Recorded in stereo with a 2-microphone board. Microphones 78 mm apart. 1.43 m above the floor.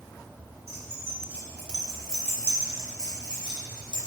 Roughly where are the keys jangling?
Right.